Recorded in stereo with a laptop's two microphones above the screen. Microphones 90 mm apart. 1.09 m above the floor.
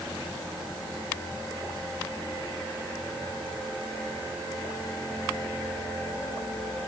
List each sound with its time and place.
Only background noise.